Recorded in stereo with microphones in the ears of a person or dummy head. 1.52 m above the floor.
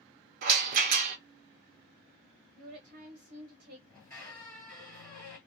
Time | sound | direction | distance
0.4 | a rattle | 55° right (ahead or behind) | 0.7 m
2.6 | a woman speaking | 45° right (ahead or behind) | 0.7 m
3.9 | a squeak | 10° left (ahead or behind) | 1.9 m